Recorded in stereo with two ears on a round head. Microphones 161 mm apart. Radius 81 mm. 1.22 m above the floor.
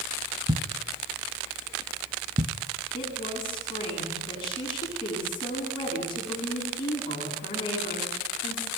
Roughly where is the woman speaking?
Left.